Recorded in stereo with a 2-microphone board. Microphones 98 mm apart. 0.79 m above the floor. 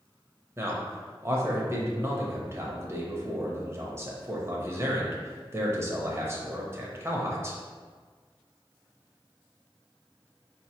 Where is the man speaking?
25° right (ahead or behind), 0.8 m.